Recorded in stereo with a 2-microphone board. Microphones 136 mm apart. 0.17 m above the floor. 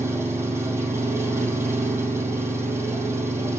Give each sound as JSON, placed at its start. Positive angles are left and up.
{"t": 0.0, "sound": "an engine running", "side_deg": -15, "distance_m": 3.0}